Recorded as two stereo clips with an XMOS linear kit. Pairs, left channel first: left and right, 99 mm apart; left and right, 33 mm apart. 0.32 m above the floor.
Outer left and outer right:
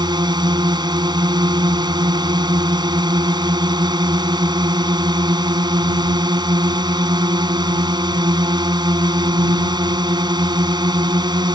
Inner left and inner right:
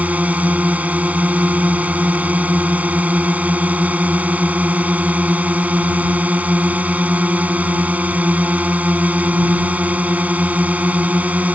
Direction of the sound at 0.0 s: 50° right (ahead or behind).